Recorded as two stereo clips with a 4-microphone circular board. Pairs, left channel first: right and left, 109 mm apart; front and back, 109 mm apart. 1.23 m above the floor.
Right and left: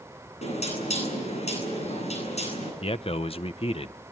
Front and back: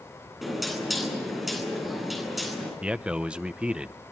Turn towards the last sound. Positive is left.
turn(degrees=-100)